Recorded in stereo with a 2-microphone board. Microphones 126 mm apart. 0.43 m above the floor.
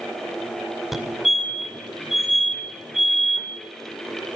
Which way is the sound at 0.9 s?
Centre (ahead or behind).